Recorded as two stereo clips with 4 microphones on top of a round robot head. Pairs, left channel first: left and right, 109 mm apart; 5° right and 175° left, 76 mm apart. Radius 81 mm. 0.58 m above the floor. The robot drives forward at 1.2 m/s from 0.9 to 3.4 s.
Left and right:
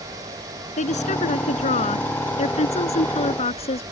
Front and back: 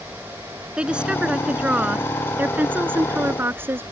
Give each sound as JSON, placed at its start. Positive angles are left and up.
{"t": 0.8, "sound": "a woman speaking", "azimuth_deg": 100}